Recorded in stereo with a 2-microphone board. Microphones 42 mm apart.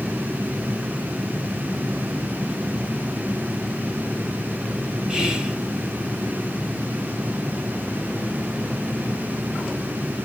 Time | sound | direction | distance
5.1 | whispering | 20° right (ahead or behind) | 1.5 m